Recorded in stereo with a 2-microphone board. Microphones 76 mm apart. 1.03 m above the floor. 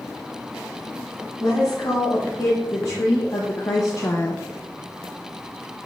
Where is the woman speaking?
65° left (ahead or behind), 2.5 m; by 4.5 s 30° left (ahead or behind), 0.5 m.